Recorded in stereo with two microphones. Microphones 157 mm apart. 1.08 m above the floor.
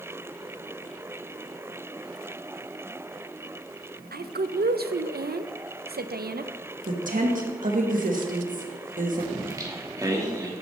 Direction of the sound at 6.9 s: 60° right (ahead or behind).